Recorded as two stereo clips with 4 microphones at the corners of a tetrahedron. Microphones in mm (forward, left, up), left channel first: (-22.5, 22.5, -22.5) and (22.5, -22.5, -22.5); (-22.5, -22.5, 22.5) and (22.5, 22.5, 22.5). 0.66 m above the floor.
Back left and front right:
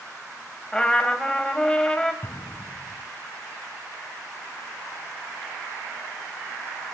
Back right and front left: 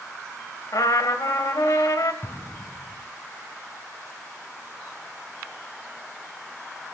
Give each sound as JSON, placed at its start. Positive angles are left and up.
{"t": 0.7, "sound": "a trumpet", "azimuth_deg": -145, "distance_m": 1.9}
{"t": 2.2, "sound": "an explosion", "azimuth_deg": 180, "distance_m": 2.0}